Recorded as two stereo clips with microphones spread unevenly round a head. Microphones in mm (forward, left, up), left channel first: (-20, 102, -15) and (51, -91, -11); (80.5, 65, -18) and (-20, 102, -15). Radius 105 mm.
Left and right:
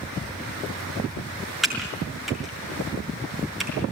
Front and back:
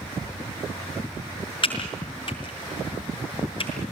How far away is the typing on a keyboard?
About 5.5 m.